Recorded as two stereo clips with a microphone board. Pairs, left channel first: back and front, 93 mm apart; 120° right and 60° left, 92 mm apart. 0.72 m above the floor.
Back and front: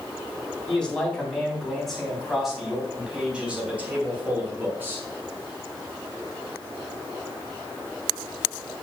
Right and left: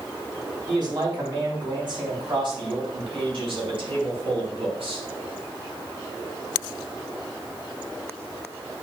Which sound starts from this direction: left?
A man speaking, at 0.7 s.